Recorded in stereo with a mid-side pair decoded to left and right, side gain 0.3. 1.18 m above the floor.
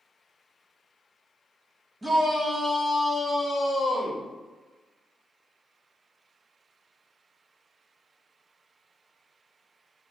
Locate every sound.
2.0 s a shout: 30° right, 1.2 m; by 4.3 s 65° left, 0.8 m